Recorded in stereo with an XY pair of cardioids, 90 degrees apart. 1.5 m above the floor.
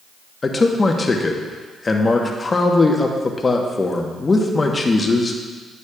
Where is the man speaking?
35° left, 1.1 m.